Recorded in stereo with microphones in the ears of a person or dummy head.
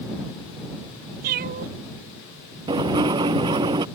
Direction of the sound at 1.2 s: 50° right (ahead or behind).